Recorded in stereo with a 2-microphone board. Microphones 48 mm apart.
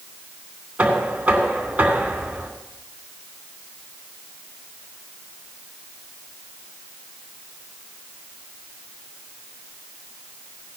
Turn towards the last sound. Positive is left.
turn(degrees=-30)  # may be behind; listen again after turning